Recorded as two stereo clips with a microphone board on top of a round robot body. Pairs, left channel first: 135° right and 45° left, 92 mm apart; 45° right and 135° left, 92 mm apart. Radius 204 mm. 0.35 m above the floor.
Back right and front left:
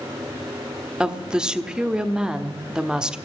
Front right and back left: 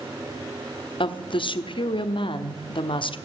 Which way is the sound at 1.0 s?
35° right.